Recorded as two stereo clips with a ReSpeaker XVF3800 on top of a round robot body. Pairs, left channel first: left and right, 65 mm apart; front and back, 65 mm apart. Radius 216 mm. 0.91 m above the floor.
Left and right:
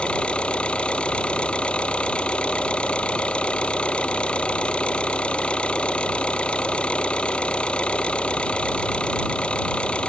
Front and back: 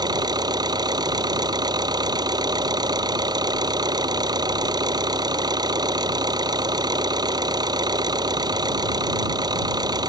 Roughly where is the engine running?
Behind.